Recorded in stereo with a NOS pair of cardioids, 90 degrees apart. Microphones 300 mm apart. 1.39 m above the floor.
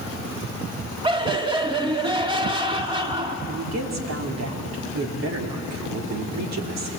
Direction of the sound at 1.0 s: 15° right.